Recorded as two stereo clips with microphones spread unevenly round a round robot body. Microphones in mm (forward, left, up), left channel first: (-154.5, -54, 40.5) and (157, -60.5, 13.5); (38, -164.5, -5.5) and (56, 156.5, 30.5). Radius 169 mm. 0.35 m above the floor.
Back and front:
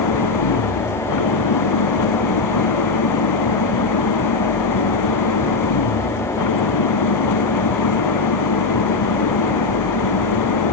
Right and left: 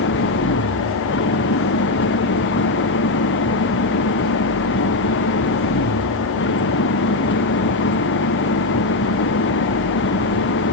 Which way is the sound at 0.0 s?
155° right.